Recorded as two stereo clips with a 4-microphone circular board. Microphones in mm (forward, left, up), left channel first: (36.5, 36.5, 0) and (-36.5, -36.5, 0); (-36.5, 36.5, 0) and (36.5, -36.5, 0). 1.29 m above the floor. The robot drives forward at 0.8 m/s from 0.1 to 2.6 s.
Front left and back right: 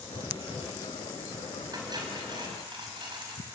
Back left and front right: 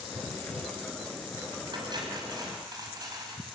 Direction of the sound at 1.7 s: 85° right.